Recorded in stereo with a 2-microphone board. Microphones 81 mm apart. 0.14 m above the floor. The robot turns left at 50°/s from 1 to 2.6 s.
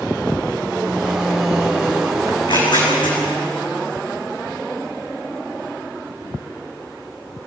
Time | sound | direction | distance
2.3 | tearing paper | 80° left | 9 m